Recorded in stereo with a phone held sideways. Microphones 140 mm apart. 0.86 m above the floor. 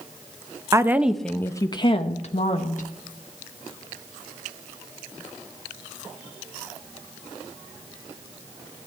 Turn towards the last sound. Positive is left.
turn(degrees=60)  # may be behind; listen again after turning